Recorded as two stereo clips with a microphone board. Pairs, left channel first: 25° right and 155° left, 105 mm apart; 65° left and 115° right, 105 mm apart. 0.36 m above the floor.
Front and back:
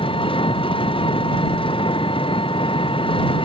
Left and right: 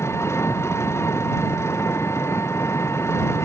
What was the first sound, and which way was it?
An engine running, 5° left.